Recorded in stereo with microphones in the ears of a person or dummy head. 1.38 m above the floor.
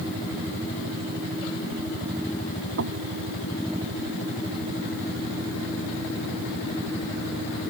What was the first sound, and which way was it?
Knocking, 90° right.